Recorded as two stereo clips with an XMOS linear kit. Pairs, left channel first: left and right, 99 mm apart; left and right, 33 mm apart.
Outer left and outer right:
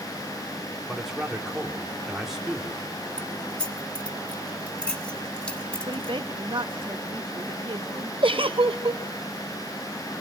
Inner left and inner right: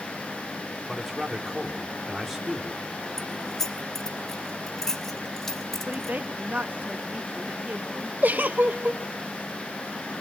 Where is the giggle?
60° right (ahead or behind), 0.8 m.